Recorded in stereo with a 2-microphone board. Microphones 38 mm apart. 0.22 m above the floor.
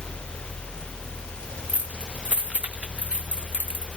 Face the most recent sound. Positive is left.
turn(degrees=-35)  # may be behind; listen again after turning